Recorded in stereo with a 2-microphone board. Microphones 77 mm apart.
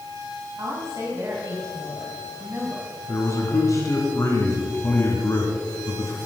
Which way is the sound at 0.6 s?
40° right (ahead or behind).